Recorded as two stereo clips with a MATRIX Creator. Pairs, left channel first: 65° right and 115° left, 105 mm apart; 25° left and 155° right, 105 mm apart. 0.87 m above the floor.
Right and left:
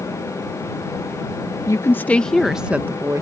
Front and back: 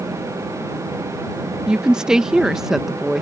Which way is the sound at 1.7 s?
80° right.